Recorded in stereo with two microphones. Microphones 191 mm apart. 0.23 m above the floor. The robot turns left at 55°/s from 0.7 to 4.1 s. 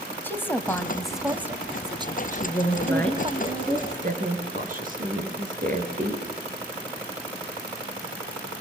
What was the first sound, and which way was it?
A woman speaking, 10° left (ahead or behind).